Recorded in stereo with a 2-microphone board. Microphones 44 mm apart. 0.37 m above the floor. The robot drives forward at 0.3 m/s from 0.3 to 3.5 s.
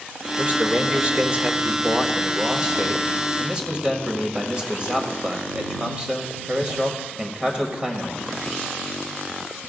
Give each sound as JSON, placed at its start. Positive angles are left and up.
{"t": 0.4, "sound": "a man speaking", "side_deg": -30, "distance_m": 1.0}